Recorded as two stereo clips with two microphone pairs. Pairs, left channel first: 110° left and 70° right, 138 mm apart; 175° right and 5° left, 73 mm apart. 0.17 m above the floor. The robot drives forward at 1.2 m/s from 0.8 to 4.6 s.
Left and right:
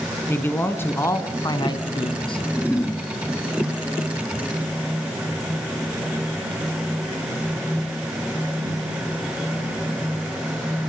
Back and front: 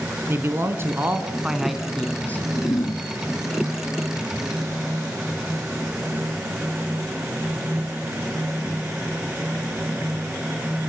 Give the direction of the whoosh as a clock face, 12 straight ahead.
5 o'clock.